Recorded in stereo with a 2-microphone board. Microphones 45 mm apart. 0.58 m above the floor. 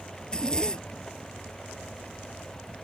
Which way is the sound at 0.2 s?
15° left (ahead or behind).